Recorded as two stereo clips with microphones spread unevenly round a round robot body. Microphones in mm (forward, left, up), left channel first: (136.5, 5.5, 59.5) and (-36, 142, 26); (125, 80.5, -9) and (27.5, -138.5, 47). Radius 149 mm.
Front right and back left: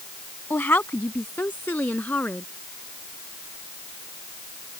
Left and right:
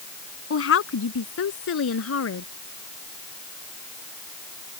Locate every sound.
0.5 s a woman speaking: 45° left